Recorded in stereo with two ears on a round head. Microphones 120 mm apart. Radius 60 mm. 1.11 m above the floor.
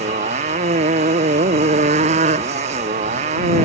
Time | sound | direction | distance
0.0 | a motorcycle | 55° right (ahead or behind) | ?